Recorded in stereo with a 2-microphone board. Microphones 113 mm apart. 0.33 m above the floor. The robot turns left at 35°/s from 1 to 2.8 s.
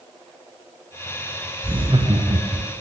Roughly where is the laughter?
Right.